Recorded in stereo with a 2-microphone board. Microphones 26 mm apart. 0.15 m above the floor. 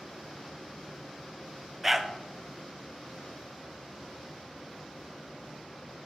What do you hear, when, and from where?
1.8 s a dog barking: 15° right (ahead or behind), 0.7 m